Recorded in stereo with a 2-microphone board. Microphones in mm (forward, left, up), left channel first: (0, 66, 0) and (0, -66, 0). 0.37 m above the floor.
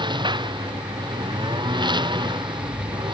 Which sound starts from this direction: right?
A lawn mower, at 0.0 s.